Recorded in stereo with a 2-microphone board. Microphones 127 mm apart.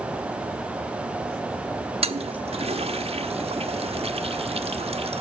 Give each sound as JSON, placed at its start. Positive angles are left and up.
{"t": 2.0, "sound": "a toilet flushing", "side_deg": -50, "distance_m": 1.3}